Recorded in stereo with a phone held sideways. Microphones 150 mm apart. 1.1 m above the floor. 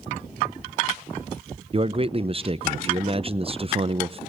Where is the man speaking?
35° right (ahead or behind), 0.5 m.